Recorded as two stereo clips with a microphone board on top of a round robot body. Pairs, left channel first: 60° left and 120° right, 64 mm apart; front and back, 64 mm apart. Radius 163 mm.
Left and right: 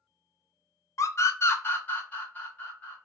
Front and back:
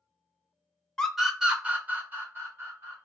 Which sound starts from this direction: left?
A scream, at 1.0 s.